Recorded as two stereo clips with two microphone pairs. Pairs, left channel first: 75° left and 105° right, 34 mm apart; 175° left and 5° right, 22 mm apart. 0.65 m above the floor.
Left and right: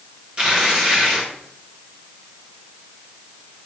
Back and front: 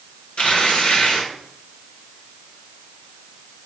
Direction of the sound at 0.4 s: 165° right.